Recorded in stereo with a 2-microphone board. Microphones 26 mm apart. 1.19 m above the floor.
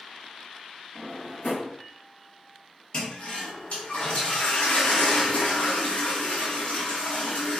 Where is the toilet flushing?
55° left (ahead or behind), 0.8 m.